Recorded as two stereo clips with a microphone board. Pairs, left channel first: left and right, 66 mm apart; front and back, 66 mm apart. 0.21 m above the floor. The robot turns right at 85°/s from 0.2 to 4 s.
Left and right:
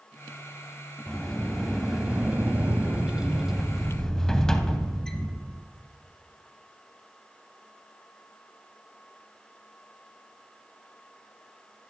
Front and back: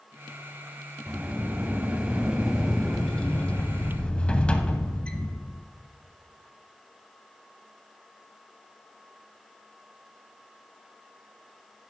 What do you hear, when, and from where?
1.1 s a sliding door: 135° left, 0.8 m; by 5.6 s 25° left, 0.8 m